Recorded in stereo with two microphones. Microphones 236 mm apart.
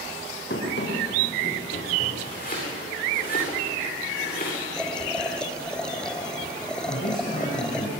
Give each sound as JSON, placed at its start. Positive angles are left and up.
{"t": 0.5, "sound": "running footsteps", "side_deg": 50, "distance_m": 5.5}
{"t": 2.2, "sound": "chopping", "side_deg": 35, "distance_m": 10.0}
{"t": 4.8, "sound": "boiling", "side_deg": 5, "distance_m": 1.2}
{"t": 6.9, "sound": "a man speaking", "side_deg": 35, "distance_m": 8.0}